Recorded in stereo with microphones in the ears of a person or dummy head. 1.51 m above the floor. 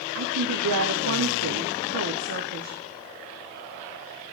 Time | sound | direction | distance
0.1 | a woman speaking | 80° right | 0.6 m